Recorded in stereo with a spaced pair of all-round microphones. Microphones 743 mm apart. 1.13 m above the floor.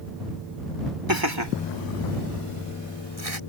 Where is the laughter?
25° right (ahead or behind); by 3.4 s 50° right (ahead or behind).